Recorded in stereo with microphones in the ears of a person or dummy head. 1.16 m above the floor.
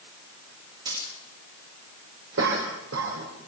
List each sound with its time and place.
0.8 s a dropped coin: 25° right (ahead or behind), 9.5 m
2.4 s a cough: 90° right, 4 m